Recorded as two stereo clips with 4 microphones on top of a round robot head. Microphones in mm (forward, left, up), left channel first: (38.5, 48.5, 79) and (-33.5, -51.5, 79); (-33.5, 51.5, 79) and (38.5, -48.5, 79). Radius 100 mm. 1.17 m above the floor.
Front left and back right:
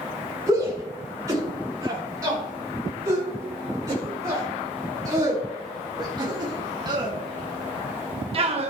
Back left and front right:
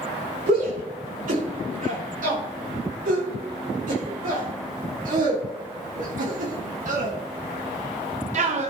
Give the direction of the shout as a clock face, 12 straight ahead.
2 o'clock.